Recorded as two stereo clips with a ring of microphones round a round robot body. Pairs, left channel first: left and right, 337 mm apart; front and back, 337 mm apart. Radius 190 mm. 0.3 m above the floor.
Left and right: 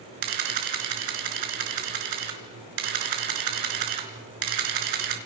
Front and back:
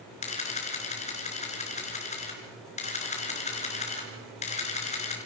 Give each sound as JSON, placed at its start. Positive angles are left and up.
{"t": 0.2, "sound": "a camera shutter", "azimuth_deg": -70, "distance_m": 4.0}